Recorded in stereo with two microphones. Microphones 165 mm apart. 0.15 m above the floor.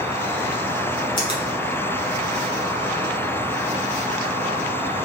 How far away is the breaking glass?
I don't hear breaking glass.